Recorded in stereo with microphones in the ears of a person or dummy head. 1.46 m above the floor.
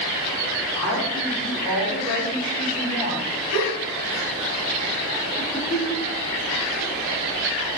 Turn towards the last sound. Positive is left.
turn(degrees=-5)  # may be behind; listen again after turning